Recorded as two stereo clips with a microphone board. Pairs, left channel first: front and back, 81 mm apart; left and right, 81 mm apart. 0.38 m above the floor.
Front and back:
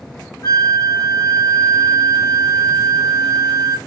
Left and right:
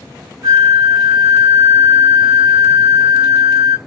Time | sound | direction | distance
0.4 | a flute | 40° right | 2.5 m